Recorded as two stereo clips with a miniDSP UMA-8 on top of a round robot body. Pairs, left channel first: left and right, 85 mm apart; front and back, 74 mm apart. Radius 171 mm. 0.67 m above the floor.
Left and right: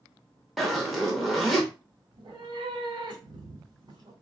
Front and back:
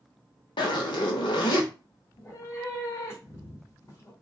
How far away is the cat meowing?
About 1.5 m.